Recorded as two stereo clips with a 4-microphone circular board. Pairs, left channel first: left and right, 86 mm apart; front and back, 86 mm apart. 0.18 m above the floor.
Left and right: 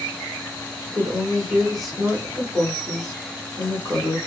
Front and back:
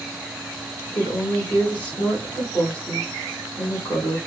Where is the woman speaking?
15° left, 1.7 m.